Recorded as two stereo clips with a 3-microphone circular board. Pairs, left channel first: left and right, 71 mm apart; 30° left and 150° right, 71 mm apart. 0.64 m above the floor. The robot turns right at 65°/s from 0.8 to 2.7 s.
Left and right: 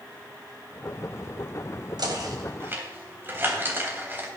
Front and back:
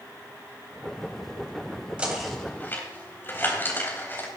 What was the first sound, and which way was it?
Knocking, 75° right.